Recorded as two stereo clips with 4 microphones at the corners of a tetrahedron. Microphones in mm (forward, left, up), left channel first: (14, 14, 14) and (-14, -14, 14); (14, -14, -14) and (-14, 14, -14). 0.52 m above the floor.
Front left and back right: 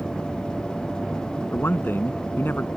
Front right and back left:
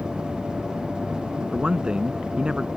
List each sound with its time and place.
1.5 s a man speaking: 70° left